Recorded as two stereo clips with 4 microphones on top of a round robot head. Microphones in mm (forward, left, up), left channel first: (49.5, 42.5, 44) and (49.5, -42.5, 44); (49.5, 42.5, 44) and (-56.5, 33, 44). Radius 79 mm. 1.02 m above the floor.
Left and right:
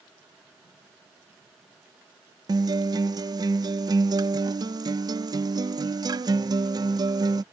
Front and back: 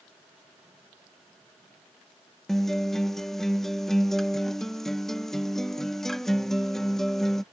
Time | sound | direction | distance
2.5 | a guitar | 80° right | ?